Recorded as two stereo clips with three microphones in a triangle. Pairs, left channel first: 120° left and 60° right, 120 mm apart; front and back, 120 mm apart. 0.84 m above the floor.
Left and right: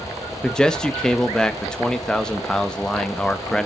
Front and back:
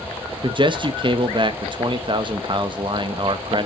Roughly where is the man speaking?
Behind.